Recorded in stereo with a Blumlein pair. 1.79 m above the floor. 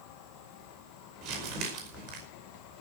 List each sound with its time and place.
0.0 s an insect: 40° left, 3 m
1.2 s crumpling: 40° right, 5 m